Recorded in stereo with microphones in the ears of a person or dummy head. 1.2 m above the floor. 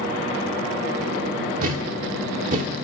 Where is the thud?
45° right (ahead or behind), 1.2 m.